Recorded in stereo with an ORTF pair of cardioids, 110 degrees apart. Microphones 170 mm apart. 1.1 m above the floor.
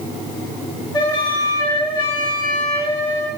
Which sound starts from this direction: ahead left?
A flute, at 0.9 s.